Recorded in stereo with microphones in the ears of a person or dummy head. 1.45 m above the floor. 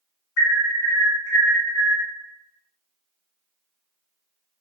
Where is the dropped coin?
I don't hear a dropped coin.